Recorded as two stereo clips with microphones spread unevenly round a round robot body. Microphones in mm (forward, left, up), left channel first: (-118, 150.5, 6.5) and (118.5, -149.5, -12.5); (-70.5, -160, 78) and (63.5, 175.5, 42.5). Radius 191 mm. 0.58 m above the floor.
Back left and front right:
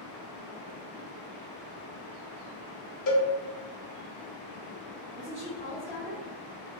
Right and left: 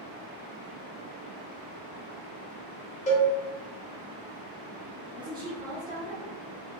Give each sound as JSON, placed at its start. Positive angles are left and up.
{"t": 3.1, "sound": "a cowbell", "azimuth_deg": 175, "distance_m": 0.6}
{"t": 5.1, "sound": "a woman speaking", "azimuth_deg": 5, "distance_m": 0.7}